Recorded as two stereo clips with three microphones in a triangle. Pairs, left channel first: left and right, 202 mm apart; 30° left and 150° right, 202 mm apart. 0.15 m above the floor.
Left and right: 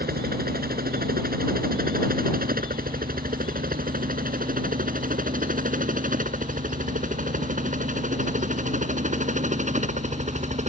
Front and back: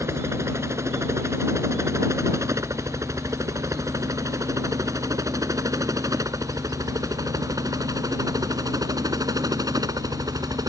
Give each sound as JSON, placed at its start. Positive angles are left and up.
{"t": 0.0, "sound": "a helicopter", "azimuth_deg": -75}